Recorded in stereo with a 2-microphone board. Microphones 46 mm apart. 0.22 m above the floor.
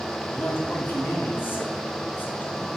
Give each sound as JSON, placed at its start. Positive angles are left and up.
{"t": 0.3, "sound": "a man speaking", "side_deg": 45, "distance_m": 2.0}